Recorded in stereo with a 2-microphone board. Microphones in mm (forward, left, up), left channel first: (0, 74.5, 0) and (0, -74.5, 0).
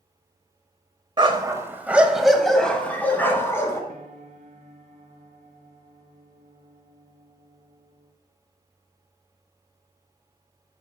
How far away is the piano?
About 1.1 m.